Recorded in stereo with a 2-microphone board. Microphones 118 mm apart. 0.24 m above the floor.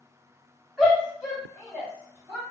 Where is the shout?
5° right (ahead or behind), 1.9 m; by 2.4 s 30° right (ahead or behind), 1.7 m.